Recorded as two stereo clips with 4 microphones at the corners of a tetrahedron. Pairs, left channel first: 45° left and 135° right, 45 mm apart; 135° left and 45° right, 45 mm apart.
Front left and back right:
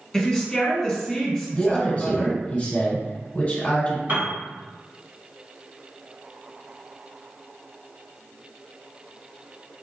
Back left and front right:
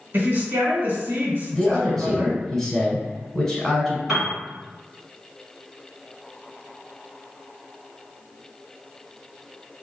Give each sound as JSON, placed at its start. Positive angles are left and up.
{"t": 0.1, "sound": "a woman speaking", "azimuth_deg": -45, "distance_m": 1.9}
{"t": 1.5, "sound": "a man speaking", "azimuth_deg": 60, "distance_m": 1.2}
{"t": 4.1, "sound": "a piano", "azimuth_deg": -125, "distance_m": 1.9}